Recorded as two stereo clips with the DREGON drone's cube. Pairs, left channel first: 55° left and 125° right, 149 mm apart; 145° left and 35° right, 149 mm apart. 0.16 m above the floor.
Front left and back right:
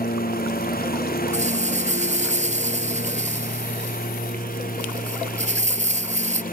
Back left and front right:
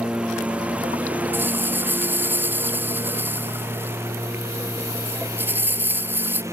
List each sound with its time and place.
0.0 s a lawn mower: 50° left; by 6.5 s 35° left
1.3 s a rattle: 110° right